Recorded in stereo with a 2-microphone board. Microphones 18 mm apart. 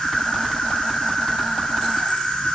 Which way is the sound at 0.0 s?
65° left (ahead or behind).